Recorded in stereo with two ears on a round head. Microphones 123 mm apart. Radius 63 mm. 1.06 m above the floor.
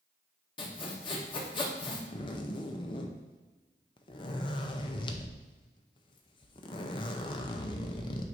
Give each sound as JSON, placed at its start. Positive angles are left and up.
{"t": 0.6, "sound": "sawing", "side_deg": 35, "distance_m": 1.2}
{"t": 2.1, "sound": "a zipper", "side_deg": 35, "distance_m": 0.6}